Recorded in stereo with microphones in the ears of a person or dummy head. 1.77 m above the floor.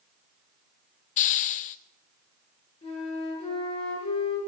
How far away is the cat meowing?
No cat meowing in this recording.